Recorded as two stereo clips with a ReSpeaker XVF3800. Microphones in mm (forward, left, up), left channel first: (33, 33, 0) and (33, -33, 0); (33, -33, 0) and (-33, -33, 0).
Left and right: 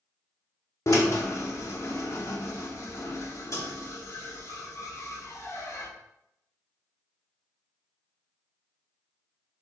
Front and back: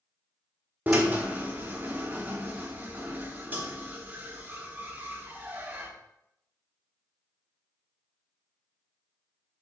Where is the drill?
120° left, 1.2 m.